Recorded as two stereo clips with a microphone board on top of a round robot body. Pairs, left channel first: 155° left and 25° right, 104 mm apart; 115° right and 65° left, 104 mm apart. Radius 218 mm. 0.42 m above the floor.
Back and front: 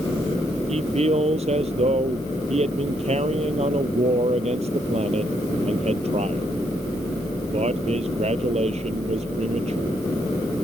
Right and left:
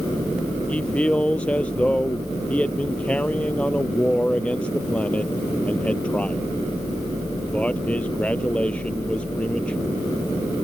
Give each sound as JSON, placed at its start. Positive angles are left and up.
{"t": 0.7, "sound": "a man speaking", "azimuth_deg": -35}